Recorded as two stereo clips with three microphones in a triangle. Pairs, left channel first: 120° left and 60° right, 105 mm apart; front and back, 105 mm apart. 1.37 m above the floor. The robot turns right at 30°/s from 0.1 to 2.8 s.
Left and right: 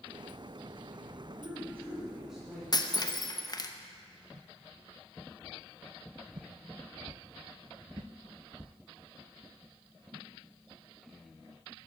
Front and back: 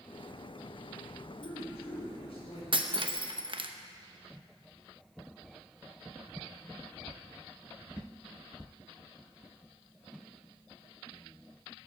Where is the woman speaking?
Straight ahead, 4.5 m; by 2.6 s 35° left, 4.5 m.